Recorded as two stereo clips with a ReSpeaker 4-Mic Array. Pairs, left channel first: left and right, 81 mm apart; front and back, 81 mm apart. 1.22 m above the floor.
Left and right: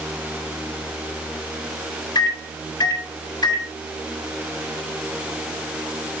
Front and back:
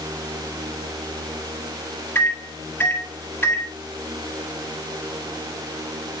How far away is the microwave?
About 4 m.